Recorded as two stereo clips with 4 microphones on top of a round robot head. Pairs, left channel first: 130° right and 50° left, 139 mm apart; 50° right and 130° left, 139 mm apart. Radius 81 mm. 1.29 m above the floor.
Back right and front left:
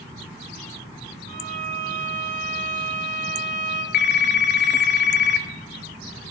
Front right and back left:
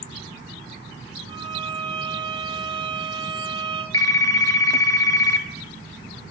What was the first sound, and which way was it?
A violin, 70° left.